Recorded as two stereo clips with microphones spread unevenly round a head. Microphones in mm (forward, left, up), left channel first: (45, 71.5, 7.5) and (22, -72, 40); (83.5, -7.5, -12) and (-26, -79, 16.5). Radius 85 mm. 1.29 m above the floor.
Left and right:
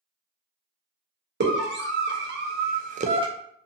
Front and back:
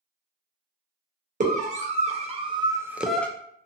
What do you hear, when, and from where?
1.4 s a scream: 115° right, 1.0 m; by 3.3 s 35° right, 0.5 m